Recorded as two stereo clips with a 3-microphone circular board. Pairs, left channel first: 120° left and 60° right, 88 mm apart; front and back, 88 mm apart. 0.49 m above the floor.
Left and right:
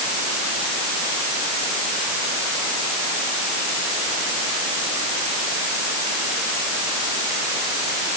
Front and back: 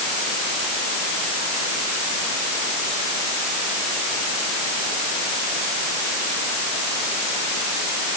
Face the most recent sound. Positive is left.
No sound to turn to.